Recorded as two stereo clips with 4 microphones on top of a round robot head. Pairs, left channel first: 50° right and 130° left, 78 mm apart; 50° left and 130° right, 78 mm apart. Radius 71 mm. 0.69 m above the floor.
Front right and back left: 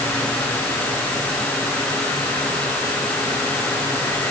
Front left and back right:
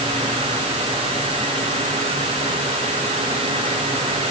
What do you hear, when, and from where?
Only background noise.